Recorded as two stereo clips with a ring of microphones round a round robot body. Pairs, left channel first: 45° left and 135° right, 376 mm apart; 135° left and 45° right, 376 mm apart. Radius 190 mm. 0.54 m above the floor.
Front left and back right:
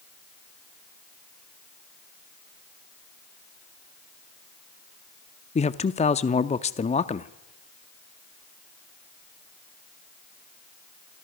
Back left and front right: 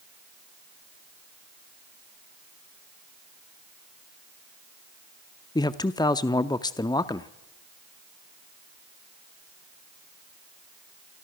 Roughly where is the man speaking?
Left.